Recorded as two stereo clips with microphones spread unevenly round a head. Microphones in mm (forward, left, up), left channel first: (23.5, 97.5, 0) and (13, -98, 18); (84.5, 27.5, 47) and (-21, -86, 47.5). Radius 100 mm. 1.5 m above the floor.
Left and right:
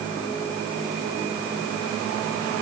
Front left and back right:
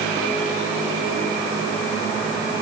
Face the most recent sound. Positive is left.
No sound to turn to.